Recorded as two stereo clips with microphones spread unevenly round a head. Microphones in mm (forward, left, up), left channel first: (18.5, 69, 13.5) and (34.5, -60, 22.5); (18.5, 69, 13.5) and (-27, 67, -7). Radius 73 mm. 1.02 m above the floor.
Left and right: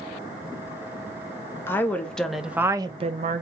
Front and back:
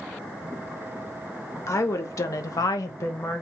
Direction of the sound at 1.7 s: 25° left.